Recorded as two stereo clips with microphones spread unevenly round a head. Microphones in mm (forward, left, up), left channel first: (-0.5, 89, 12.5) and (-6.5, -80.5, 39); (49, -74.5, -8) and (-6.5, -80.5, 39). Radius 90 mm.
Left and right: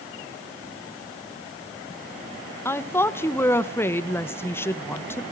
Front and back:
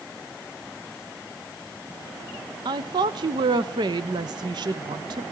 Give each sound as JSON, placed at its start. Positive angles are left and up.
{"t": 2.6, "sound": "a woman speaking", "azimuth_deg": 140, "distance_m": 1.0}